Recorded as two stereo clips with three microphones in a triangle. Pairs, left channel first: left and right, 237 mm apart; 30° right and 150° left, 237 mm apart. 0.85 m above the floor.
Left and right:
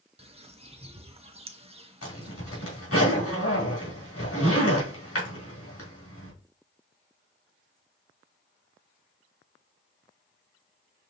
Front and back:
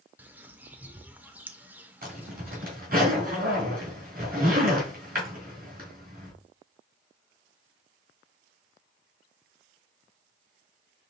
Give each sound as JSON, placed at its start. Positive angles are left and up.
{"t": 0.2, "sound": "a bird", "azimuth_deg": -130, "distance_m": 0.6}
{"t": 2.0, "sound": "a zipper", "azimuth_deg": 100, "distance_m": 2.5}